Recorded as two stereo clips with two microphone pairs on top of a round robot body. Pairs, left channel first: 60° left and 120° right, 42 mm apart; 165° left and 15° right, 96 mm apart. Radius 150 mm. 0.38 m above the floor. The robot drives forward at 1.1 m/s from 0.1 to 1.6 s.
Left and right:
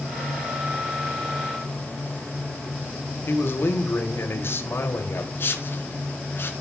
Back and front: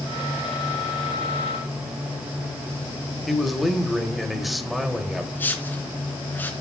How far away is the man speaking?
About 3 m.